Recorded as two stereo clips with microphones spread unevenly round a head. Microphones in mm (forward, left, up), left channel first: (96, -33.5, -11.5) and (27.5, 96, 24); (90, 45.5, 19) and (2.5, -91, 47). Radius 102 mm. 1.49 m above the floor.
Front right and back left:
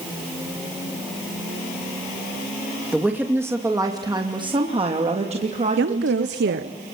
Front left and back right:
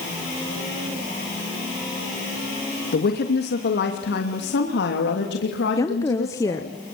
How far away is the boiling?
No boiling in this recording.